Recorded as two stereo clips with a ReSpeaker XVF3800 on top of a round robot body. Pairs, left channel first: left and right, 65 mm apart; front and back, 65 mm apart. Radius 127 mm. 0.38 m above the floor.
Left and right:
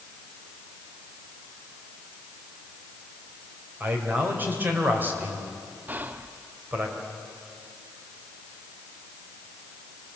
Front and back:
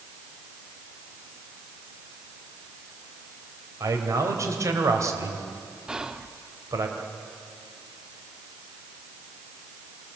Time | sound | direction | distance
3.8 | a man speaking | 150° right | 3 m
5.9 | whispering | 110° right | 0.8 m